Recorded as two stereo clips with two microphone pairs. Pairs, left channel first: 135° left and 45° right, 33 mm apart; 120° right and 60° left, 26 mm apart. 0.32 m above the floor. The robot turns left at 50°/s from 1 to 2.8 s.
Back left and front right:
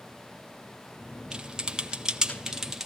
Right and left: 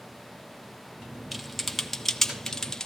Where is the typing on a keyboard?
30° right, 1.3 m; by 2.9 s 105° right, 1.3 m.